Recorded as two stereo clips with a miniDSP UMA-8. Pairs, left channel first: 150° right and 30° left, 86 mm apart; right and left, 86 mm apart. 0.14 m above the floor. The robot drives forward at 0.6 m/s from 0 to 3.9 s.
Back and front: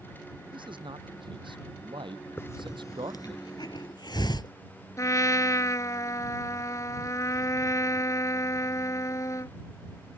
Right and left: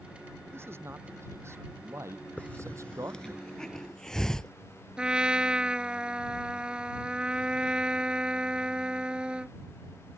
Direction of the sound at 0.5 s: 30° left.